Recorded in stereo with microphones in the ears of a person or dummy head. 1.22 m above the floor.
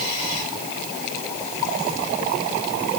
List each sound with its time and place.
Only background noise.